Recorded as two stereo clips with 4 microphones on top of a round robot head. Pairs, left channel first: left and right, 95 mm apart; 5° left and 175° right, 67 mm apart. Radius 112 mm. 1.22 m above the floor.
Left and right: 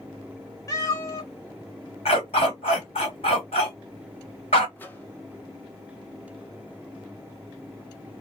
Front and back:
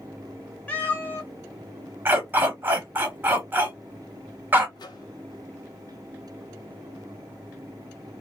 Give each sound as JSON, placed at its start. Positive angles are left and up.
{"t": 0.7, "sound": "a cat meowing", "azimuth_deg": 60, "distance_m": 0.6}
{"t": 2.0, "sound": "a dog barking", "azimuth_deg": 130, "distance_m": 1.2}
{"t": 4.8, "sound": "a microwave", "azimuth_deg": 20, "distance_m": 0.7}